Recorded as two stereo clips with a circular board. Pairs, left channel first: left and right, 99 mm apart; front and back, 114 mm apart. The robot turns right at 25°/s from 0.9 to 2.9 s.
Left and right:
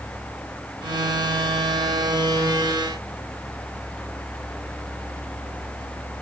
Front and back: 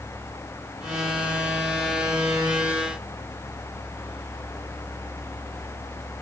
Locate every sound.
Only background noise.